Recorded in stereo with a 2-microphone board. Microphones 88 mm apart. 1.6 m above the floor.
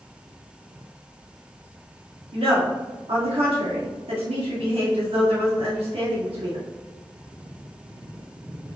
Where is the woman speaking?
80° right, 1.5 m.